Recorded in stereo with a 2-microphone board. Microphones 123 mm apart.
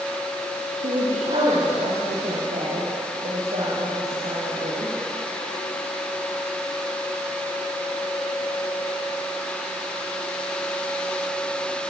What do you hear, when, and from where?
0.8 s a woman speaking: 80° right, 6 m